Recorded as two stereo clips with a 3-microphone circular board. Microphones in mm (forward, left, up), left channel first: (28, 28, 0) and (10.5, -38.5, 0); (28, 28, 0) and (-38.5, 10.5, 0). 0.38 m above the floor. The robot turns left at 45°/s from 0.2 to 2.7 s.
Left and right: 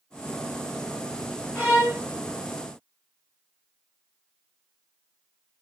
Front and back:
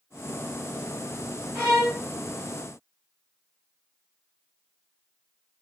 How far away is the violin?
About 1.5 m.